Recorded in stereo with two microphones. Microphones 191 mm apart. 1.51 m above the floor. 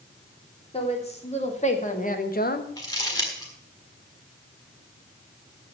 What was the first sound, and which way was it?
A woman speaking, 30° left (ahead or behind).